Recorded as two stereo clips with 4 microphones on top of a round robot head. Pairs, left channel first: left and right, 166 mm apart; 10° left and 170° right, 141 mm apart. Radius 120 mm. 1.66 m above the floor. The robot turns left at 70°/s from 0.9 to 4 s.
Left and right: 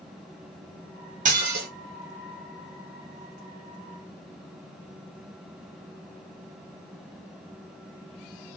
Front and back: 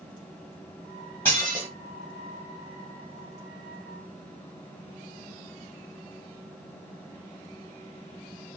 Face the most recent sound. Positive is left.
turn(degrees=100)